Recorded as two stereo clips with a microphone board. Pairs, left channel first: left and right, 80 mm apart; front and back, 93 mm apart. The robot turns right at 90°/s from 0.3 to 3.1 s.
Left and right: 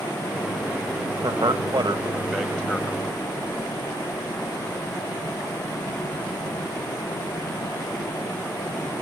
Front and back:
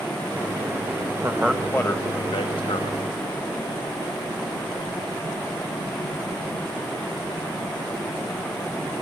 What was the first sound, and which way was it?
A man speaking, 110° right.